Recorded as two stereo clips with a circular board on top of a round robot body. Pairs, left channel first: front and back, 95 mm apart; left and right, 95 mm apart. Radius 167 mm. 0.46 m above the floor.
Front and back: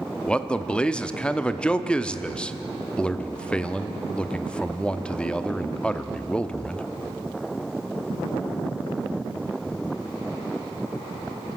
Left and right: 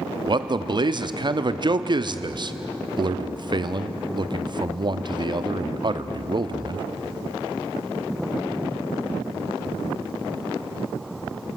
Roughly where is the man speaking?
Right.